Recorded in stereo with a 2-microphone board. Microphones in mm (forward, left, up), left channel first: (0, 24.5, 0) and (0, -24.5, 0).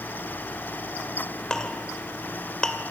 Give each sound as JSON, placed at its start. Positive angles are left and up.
{"t": 1.5, "sound": "a clink", "side_deg": 15, "distance_m": 2.0}